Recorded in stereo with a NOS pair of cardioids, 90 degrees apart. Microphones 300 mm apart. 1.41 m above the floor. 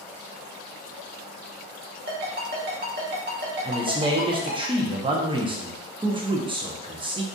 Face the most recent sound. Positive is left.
turn(degrees=-15)